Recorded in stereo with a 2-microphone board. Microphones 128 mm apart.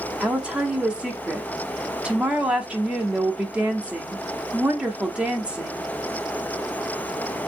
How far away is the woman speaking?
About 0.6 m.